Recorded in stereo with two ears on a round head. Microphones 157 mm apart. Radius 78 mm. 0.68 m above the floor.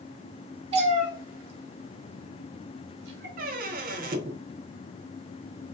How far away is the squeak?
About 0.6 m.